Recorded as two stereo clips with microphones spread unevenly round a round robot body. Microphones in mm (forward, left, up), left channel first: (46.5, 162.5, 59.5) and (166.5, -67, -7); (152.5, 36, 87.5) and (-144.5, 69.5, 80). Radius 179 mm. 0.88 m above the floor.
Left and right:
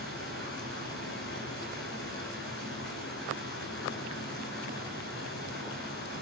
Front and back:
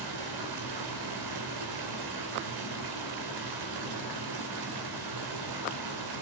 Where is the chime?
I don't hear a chime.